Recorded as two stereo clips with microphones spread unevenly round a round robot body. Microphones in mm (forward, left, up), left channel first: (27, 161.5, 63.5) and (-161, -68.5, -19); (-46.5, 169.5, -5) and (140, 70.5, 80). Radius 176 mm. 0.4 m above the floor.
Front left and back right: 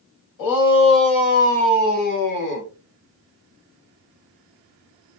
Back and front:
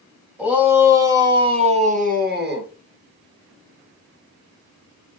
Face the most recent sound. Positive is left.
turn(degrees=15)